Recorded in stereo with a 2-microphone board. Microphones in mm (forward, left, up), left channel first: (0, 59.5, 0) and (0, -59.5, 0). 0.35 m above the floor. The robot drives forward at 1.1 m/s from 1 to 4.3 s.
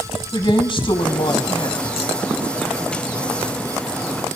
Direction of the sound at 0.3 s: 45° left (ahead or behind).